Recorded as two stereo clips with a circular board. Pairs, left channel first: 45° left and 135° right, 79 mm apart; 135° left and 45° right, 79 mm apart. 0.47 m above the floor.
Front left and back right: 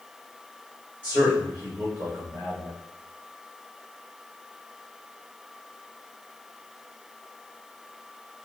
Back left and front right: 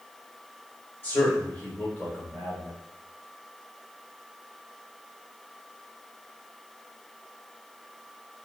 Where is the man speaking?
175° left, 1.8 m.